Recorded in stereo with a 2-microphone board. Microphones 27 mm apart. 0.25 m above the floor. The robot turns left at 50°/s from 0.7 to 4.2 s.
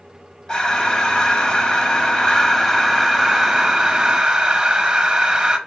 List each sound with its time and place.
0.5 s breathing: 125° left, 0.8 m; by 5.6 s 50° right, 0.8 m